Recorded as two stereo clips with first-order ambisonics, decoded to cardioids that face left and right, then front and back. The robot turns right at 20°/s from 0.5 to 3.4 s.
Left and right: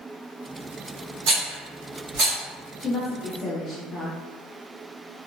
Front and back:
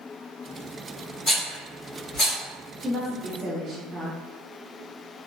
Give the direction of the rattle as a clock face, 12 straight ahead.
3 o'clock.